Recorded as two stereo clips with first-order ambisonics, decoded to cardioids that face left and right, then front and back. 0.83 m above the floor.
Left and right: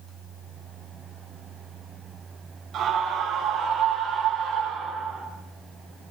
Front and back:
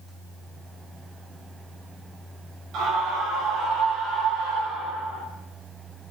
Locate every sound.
2.7 s a scream: 140° right, 5.5 m; by 5.2 s 135° right, 7.5 m